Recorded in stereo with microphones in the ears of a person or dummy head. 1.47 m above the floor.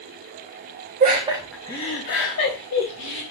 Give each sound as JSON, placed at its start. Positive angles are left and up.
{"t": 1.0, "sound": "laughter", "side_deg": -45, "distance_m": 0.8}